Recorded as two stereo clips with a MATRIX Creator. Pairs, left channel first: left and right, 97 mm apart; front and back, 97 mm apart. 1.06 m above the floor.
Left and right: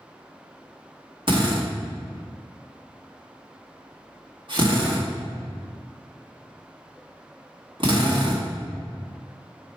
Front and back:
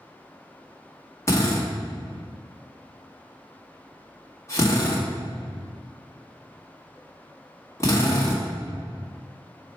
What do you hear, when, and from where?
1.3 s a drill: 60° right, 1.6 m